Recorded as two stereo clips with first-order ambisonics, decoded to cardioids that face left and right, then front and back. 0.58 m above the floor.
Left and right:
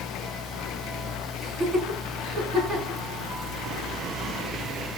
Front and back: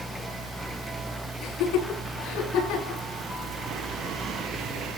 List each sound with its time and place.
1.4 s laughter: 15° right, 8 m; by 3.0 s 20° right, 7.5 m